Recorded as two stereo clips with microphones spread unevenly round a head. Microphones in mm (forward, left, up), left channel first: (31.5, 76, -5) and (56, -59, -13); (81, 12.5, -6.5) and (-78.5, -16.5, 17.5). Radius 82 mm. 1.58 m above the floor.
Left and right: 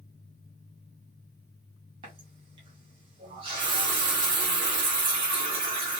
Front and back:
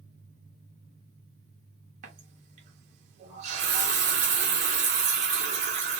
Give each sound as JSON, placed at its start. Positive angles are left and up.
{"t": 2.0, "sound": "a running tap", "azimuth_deg": -135, "distance_m": 1.1}